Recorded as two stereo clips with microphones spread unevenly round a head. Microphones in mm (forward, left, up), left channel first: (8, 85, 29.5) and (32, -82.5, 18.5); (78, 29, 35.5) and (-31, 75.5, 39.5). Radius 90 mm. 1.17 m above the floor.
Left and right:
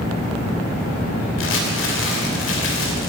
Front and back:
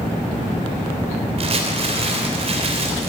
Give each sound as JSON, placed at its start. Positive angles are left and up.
{"t": 1.4, "sound": "crumpling", "azimuth_deg": 125, "distance_m": 3.0}